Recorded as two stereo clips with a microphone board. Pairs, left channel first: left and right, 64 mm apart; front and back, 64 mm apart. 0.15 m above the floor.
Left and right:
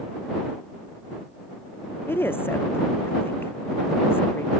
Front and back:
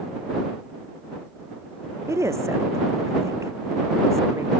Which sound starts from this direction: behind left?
A woman speaking, at 2.1 s.